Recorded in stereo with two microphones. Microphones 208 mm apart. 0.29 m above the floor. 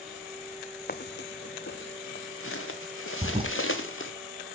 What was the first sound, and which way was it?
Footsteps, 50° left (ahead or behind).